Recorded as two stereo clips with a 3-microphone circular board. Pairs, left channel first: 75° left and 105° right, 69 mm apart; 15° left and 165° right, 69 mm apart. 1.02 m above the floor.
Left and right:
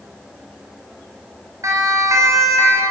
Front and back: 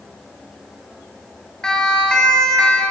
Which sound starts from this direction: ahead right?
A siren, at 1.6 s.